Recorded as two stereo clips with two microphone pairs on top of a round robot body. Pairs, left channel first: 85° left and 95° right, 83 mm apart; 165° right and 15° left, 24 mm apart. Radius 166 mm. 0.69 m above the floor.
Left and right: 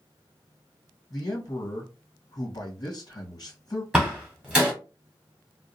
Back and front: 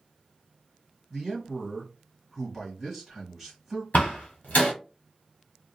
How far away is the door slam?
About 1.2 m.